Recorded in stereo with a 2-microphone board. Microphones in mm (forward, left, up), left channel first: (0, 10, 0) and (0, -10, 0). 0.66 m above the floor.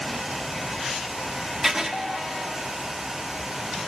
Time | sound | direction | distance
1.6 | writing | 20° right (ahead or behind) | 1.0 m